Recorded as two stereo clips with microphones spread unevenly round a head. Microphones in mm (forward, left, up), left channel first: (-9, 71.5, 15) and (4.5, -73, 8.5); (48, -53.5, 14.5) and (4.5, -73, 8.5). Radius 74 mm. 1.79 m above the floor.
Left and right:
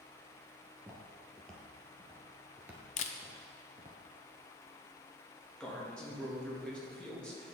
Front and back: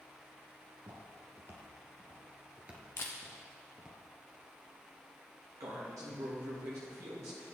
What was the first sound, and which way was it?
Footsteps, 170° left.